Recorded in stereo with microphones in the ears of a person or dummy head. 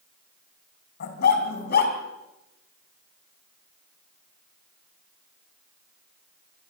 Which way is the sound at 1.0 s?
55° left (ahead or behind).